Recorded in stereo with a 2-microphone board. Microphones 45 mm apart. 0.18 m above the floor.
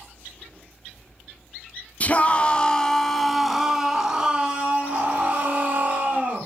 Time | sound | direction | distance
2.0 | a scream | 35° left (ahead or behind) | 1.5 m